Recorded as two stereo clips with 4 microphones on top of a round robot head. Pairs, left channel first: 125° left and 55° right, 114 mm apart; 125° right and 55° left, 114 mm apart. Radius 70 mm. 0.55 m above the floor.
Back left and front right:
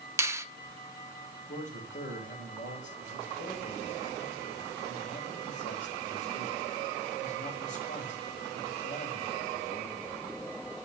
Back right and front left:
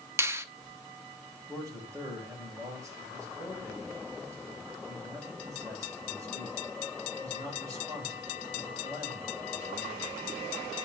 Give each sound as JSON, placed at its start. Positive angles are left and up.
{"t": 0.2, "sound": "a finger snap", "azimuth_deg": 0, "distance_m": 1.0}
{"t": 1.5, "sound": "a man speaking", "azimuth_deg": 120, "distance_m": 3.0}